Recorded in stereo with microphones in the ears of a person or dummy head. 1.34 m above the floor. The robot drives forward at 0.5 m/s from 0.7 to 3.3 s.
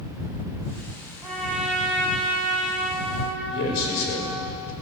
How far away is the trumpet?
About 6 m.